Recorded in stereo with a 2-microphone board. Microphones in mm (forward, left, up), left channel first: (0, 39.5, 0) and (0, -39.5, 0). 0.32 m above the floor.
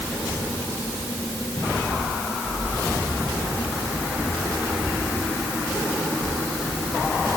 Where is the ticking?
I don't hear ticking.